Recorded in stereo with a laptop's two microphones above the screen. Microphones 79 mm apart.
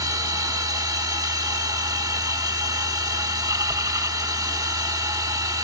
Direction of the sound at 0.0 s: 50° right (ahead or behind).